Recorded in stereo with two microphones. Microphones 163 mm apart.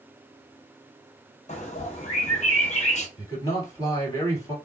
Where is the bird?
50° left (ahead or behind), 0.9 m.